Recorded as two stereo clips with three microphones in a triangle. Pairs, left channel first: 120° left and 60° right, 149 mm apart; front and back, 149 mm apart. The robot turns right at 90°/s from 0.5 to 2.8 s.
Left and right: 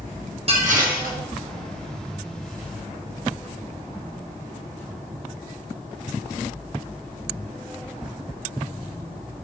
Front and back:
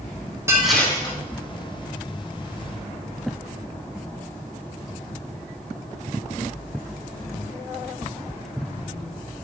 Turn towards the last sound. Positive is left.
turn(degrees=100)